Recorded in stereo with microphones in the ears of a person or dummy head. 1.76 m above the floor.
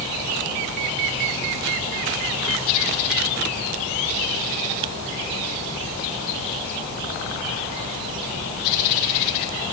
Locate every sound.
Only background noise.